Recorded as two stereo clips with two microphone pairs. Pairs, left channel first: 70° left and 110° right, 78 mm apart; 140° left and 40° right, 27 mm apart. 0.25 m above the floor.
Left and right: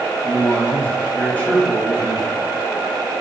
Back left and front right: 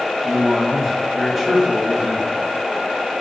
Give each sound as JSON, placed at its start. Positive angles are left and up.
{"t": 0.2, "sound": "a man speaking", "azimuth_deg": 35, "distance_m": 1.2}